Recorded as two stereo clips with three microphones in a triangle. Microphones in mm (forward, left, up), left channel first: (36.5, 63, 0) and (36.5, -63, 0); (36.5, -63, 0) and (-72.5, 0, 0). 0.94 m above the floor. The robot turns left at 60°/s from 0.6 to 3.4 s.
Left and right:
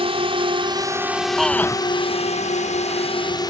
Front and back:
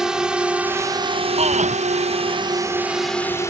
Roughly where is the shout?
Behind.